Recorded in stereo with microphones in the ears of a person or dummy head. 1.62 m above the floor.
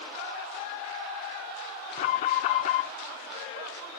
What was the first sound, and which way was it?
An alarm, 45° left (ahead or behind).